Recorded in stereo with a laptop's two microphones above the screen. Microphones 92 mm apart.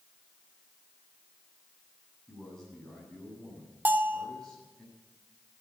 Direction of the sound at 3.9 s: 20° right (ahead or behind).